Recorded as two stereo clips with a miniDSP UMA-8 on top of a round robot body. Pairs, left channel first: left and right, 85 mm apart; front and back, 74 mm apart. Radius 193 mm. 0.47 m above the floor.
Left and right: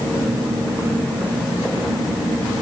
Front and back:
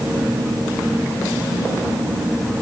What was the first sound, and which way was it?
Only background noise.